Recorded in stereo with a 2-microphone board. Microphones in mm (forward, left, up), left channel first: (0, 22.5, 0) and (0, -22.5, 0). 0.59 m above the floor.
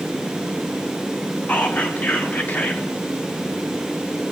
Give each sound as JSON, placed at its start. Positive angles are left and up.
{"t": 1.5, "sound": "whispering", "side_deg": 35, "distance_m": 0.7}